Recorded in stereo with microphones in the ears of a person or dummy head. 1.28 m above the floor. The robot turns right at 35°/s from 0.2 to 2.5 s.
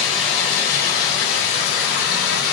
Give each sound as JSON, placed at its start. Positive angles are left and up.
{"t": 0.0, "sound": "running water", "azimuth_deg": 40, "distance_m": 3.0}